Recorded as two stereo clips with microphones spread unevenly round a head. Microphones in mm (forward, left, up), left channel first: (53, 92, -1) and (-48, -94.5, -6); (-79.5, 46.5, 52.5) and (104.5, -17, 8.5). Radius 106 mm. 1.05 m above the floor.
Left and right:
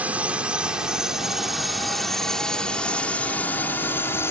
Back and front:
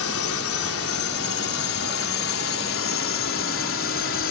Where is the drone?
160° left; by 4.3 s 140° left.